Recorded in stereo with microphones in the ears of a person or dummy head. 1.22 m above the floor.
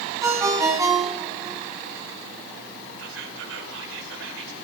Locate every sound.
0.2 s a ringtone: 15° right (ahead or behind), 3 m
3.0 s whispering: 70° right (ahead or behind), 4.5 m